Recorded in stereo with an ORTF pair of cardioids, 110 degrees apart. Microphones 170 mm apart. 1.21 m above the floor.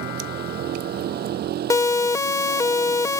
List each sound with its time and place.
0.0 s a vehicle: 60° right
1.7 s a siren: 20° left